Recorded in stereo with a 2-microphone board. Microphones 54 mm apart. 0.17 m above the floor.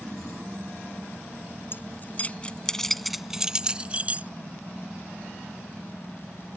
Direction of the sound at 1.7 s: 45° left (ahead or behind).